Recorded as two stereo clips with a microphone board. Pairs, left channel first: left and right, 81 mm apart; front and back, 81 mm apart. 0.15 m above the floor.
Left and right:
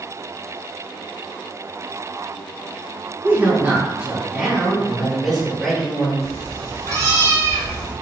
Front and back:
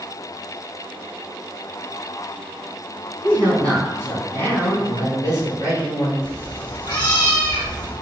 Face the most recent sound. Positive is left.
turn(degrees=40)